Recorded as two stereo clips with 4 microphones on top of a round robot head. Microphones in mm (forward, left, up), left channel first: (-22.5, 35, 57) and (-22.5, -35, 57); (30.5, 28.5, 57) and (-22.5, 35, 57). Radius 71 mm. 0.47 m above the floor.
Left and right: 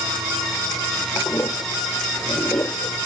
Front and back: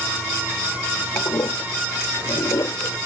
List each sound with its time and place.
1.1 s a toilet flushing: 25° left